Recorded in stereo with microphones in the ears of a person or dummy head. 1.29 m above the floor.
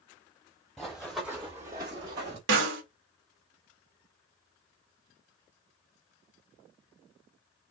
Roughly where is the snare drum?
Right.